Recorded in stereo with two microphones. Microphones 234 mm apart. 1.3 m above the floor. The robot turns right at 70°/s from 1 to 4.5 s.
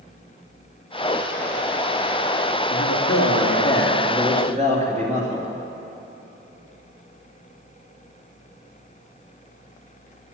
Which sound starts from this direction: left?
A man speaking, at 2.7 s.